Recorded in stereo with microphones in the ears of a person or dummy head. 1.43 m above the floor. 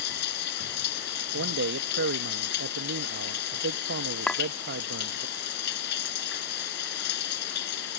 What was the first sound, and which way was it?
Running water, 60° left (ahead or behind).